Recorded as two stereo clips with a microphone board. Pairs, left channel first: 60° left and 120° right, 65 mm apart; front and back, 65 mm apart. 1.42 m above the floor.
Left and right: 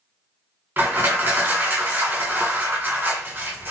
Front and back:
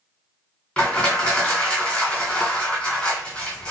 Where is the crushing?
70° right, 1.8 m.